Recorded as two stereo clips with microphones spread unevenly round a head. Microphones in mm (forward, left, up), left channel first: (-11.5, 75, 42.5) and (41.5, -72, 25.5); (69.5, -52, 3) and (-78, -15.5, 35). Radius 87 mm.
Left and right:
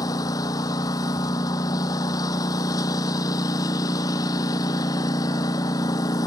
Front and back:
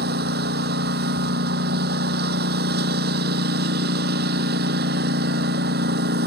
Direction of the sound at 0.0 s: Straight behind.